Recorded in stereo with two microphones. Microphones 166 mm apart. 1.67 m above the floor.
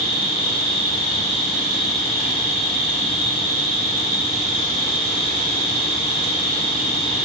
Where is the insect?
30° left (ahead or behind), 2 m.